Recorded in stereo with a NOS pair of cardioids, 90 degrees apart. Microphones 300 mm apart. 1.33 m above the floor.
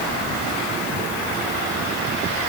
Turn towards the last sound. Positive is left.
No sound to turn to.